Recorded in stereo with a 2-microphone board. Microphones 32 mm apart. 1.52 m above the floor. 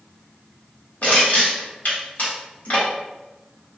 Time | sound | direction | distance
1.0 | crushing | 60° left (ahead or behind) | 1.4 m